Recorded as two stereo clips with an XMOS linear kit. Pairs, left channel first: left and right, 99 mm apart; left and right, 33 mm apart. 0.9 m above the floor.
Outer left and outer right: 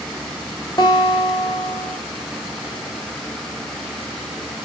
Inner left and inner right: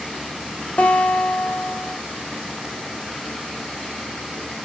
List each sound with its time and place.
0.8 s a guitar: 40° left (ahead or behind), 3 m